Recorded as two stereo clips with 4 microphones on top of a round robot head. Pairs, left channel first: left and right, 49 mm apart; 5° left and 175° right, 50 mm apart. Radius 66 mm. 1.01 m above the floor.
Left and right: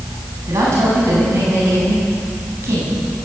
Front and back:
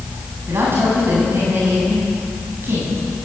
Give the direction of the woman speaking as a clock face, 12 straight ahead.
4 o'clock.